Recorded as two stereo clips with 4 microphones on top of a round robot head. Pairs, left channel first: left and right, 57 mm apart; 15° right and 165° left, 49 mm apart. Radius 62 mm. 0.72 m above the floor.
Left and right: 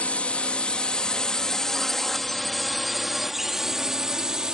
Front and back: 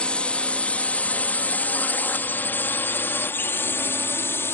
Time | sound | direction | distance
0.0 | a drone | 40° left | ?